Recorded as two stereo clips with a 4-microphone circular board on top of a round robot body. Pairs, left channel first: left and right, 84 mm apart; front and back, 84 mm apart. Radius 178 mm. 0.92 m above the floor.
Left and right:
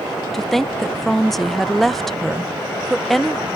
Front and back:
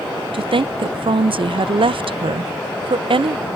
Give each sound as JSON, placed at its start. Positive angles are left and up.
{"t": 0.3, "sound": "a woman speaking", "azimuth_deg": 175}